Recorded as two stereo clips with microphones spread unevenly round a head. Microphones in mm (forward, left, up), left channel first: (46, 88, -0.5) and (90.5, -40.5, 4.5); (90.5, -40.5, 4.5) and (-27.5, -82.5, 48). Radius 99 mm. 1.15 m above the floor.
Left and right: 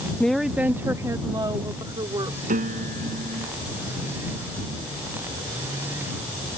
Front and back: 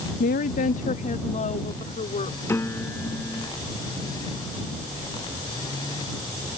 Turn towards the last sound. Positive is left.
turn(degrees=-55)